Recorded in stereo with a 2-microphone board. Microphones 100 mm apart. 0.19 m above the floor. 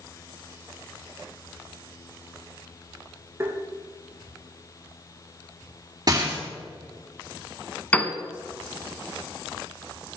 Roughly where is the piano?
Centre.